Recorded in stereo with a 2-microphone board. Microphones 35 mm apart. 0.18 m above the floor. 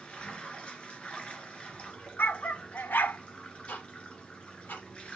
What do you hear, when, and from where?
0.0 s running water: 30° left (ahead or behind), 2 m
2.2 s a dog barking: 70° left (ahead or behind), 0.7 m
3.7 s ticking: 75° left (ahead or behind), 5 m